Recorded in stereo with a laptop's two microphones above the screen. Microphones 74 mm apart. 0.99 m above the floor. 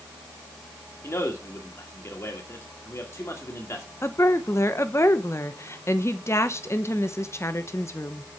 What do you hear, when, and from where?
1.0 s a man speaking: 35° left (ahead or behind), 1.8 m
4.0 s a woman speaking: 35° left (ahead or behind), 0.8 m